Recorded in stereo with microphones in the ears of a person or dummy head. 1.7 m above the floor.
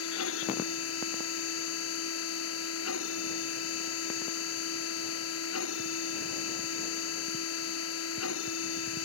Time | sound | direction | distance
0.0 | a machine running | 85° left | ?